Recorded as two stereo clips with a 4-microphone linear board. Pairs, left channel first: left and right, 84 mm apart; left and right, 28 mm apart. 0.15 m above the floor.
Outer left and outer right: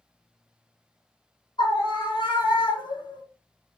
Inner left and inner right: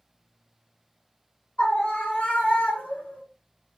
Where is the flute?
No flute in this recording.